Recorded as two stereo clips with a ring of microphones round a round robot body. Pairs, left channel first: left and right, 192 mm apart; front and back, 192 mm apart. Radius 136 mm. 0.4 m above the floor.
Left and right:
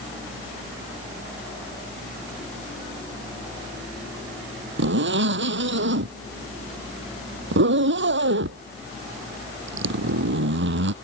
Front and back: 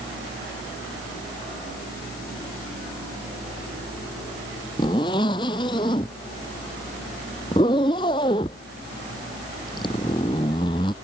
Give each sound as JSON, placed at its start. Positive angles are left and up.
{"t": 4.8, "sound": "a zipper", "azimuth_deg": -75}